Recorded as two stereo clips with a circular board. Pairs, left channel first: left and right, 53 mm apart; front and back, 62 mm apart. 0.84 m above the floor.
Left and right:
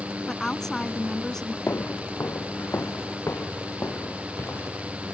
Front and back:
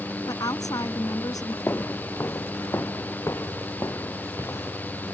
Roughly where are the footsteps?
Ahead left.